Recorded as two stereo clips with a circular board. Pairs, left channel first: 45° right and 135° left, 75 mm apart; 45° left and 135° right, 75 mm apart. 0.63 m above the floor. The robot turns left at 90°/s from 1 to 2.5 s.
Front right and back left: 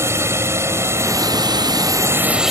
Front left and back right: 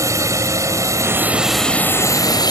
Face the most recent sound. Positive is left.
turn(degrees=50)